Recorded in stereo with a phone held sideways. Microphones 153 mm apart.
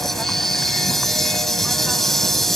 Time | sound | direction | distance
0.0 | an insect | centre (ahead or behind) | ?